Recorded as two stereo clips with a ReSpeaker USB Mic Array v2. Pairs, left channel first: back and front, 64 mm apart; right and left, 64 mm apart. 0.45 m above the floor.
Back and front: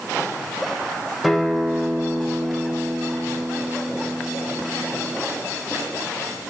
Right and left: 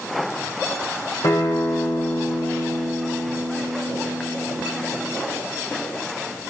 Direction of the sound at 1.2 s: 90° right.